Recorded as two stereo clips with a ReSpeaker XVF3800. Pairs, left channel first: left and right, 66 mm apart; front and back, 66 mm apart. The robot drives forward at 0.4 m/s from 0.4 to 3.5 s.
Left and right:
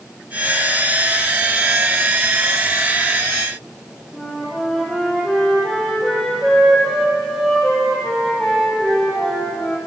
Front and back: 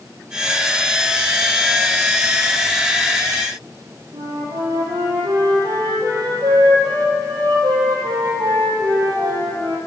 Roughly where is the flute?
Behind.